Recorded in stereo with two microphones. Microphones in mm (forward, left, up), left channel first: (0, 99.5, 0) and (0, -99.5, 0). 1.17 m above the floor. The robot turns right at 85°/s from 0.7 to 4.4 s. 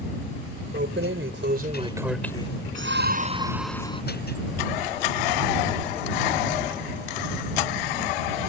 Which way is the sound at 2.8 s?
80° right.